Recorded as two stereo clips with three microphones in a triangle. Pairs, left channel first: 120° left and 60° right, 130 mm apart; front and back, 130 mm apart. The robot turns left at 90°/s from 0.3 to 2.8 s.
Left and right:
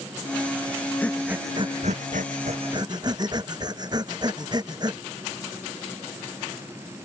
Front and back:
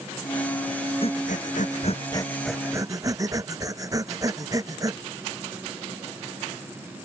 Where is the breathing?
45° left; by 5.0 s 115° right.